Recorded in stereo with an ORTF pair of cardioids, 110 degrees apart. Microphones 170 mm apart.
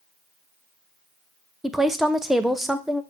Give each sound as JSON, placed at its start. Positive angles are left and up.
{"t": 1.6, "sound": "a woman speaking", "azimuth_deg": 0, "distance_m": 0.5}